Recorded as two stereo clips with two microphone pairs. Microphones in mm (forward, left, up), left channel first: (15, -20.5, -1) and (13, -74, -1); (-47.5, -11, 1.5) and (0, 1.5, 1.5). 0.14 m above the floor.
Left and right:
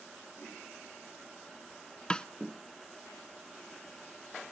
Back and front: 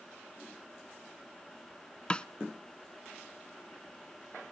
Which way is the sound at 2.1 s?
150° left.